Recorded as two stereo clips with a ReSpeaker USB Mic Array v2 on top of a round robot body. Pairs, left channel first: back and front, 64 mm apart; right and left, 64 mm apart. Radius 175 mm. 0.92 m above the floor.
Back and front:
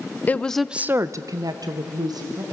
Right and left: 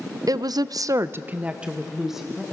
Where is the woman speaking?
115° left, 0.6 m; by 2.4 s straight ahead, 1.5 m.